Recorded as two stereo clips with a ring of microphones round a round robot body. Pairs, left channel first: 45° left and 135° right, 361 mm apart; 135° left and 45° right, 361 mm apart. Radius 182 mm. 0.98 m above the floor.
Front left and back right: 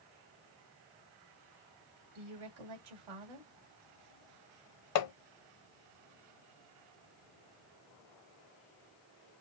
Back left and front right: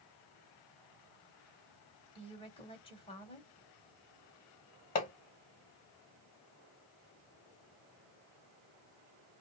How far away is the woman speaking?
About 2.5 m.